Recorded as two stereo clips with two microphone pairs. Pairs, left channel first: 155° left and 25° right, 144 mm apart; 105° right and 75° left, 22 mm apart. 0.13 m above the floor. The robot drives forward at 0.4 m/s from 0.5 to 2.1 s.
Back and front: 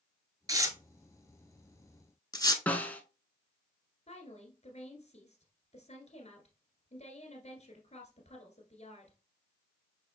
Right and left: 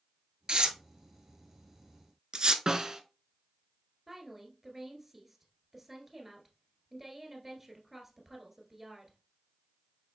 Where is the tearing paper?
35° left, 0.7 m; by 2.6 s 105° left, 0.5 m.